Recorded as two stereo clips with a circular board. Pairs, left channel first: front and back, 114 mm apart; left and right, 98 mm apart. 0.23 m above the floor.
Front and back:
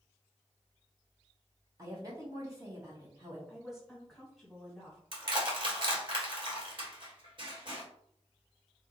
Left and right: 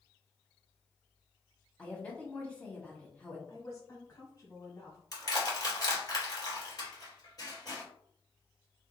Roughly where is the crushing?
Behind left.